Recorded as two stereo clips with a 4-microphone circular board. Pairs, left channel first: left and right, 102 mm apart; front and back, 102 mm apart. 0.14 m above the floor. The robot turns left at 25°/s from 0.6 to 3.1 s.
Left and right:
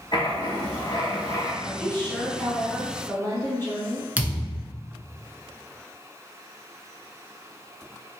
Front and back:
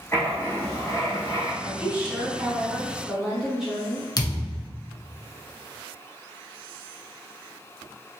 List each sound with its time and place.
0.1 s writing: 60° left, 1.1 m; by 1.5 s 40° left, 1.1 m
1.6 s a woman speaking: 135° left, 1.1 m; by 4.1 s 100° left, 1.1 m
4.2 s a thud: 20° right, 0.6 m